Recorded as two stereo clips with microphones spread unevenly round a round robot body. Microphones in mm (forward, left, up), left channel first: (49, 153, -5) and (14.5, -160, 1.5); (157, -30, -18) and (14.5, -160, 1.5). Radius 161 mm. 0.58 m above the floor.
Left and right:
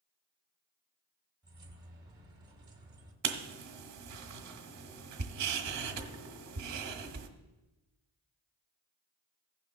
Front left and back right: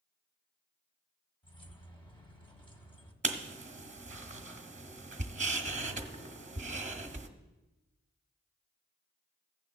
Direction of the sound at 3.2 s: 90° right.